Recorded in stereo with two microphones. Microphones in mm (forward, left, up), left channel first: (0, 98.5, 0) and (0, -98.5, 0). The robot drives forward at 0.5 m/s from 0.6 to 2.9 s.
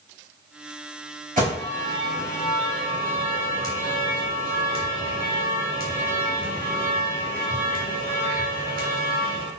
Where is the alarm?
45° right (ahead or behind), 3.5 m; by 9.5 s 50° right (ahead or behind), 3 m.